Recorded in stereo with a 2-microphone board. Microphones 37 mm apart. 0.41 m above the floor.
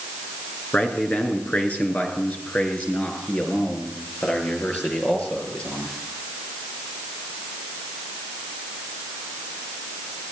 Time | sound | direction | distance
0.7 | a man speaking | 45° left (ahead or behind) | 5 m